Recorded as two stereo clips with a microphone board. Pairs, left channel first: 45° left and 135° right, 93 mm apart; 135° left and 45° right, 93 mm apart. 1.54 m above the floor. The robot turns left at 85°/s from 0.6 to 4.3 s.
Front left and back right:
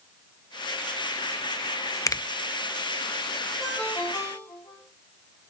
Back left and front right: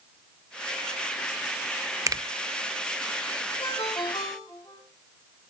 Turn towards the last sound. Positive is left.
turn(degrees=80)